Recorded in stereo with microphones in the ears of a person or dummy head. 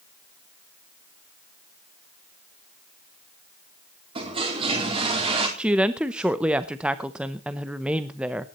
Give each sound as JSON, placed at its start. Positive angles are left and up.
{"t": 4.2, "sound": "a toilet flushing", "side_deg": -30, "distance_m": 3.5}
{"t": 5.6, "sound": "a woman speaking", "side_deg": -10, "distance_m": 0.7}